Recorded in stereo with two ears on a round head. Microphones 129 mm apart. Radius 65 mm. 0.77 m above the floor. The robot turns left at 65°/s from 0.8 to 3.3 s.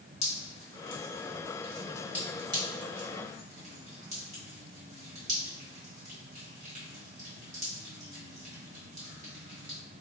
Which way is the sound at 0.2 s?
50° left (ahead or behind).